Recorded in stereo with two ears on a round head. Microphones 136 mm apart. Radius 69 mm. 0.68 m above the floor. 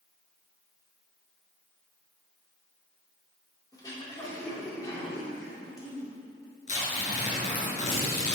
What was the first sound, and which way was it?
Throat clearing, 25° left (ahead or behind).